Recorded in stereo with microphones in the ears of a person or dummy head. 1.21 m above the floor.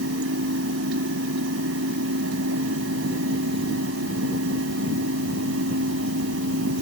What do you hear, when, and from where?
0.0 s a fan: 70° right (ahead or behind)